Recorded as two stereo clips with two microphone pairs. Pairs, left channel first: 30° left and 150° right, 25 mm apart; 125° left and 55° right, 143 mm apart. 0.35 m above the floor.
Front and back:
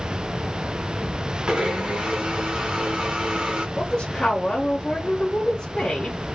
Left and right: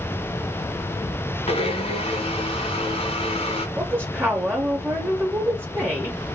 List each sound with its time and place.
1.5 s a blender: 165° left, 0.9 m
3.8 s a woman speaking: straight ahead, 1.0 m